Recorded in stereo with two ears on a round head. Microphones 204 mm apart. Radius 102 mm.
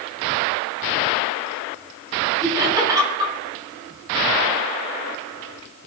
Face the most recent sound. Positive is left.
turn(degrees=-20)  # may be behind; listen again after turning